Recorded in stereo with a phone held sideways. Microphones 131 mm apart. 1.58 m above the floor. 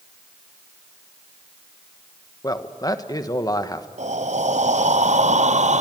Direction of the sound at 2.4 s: 30° left (ahead or behind).